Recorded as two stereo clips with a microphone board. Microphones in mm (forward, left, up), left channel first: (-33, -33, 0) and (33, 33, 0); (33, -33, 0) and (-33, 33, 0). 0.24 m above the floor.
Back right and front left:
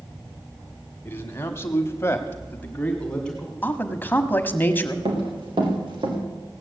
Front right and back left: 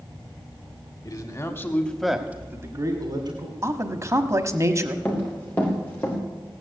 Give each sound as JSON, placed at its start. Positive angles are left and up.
{"t": 1.1, "sound": "a man speaking", "azimuth_deg": -75, "distance_m": 1.9}
{"t": 3.6, "sound": "a man speaking", "azimuth_deg": 170, "distance_m": 1.2}
{"t": 5.0, "sound": "running footsteps", "azimuth_deg": 30, "distance_m": 5.0}